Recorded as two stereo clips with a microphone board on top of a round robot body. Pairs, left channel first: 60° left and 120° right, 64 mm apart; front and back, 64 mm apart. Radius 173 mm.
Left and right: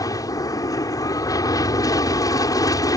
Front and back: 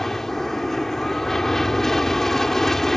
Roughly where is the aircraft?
Left.